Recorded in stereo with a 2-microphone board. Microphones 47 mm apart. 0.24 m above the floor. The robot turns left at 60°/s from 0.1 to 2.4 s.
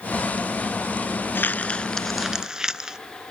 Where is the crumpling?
50° left (ahead or behind), 0.5 m; by 3.0 s 15° right (ahead or behind), 0.5 m.